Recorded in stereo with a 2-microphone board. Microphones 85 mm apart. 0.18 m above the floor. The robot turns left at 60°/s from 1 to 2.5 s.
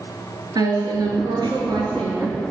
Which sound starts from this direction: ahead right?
A woman speaking, at 0.6 s.